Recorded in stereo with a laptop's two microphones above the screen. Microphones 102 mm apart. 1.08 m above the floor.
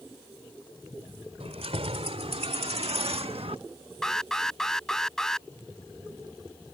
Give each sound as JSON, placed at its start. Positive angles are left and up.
{"t": 1.4, "sound": "keys jangling", "side_deg": -85}
{"t": 4.0, "sound": "an alarm", "side_deg": 5}